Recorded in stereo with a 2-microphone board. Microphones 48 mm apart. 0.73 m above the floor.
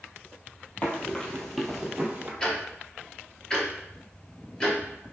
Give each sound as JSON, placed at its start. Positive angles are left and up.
{"t": 0.8, "sound": "running footsteps", "side_deg": 30, "distance_m": 1.2}
{"t": 2.4, "sound": "ticking", "side_deg": 15, "distance_m": 0.9}